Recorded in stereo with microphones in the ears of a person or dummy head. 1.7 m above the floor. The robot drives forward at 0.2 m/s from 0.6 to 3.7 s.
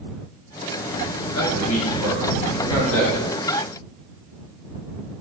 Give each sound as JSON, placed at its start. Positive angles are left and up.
{"t": 1.3, "sound": "a man speaking", "side_deg": 85, "distance_m": 1.2}